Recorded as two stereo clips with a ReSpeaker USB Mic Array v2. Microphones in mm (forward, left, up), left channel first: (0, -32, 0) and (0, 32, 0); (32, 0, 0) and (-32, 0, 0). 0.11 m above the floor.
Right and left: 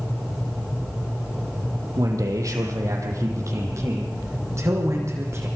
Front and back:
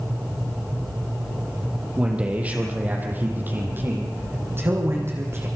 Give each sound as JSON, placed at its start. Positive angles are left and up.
{"t": 2.0, "sound": "a man speaking", "azimuth_deg": 110, "distance_m": 4.0}